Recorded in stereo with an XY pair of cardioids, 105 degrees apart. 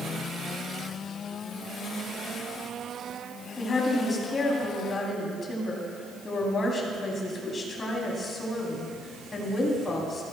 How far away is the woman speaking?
About 3.5 m.